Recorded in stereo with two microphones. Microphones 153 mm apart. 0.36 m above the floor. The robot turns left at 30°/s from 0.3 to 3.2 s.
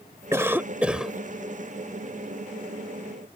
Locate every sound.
0.3 s a cough: 20° right (ahead or behind); by 1.1 s centre (ahead or behind)